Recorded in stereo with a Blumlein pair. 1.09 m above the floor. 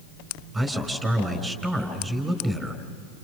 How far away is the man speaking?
About 4.5 m.